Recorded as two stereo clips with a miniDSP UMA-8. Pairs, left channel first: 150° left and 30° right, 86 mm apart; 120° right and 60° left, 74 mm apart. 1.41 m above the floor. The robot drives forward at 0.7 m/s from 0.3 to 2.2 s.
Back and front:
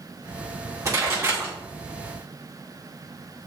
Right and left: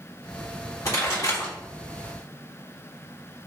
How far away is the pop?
About 1.9 m.